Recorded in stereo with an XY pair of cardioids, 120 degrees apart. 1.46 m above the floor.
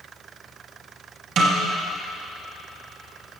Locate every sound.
1.4 s a snare drum: 55° right, 2.5 m